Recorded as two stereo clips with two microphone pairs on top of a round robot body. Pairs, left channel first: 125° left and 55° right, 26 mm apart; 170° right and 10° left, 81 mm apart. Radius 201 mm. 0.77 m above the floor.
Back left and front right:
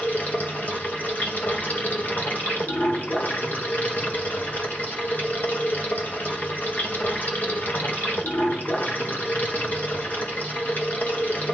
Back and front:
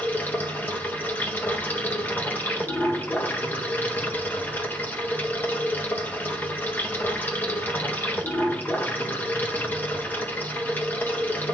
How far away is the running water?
About 1.5 m.